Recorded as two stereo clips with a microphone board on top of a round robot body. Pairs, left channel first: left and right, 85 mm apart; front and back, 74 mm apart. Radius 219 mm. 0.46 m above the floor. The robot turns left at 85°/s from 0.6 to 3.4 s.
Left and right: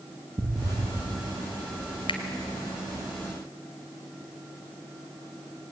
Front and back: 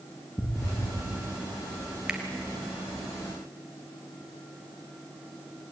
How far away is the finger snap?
About 2.5 m.